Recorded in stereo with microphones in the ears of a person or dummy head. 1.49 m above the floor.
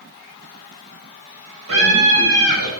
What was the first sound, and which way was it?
A scream, 75° right (ahead or behind).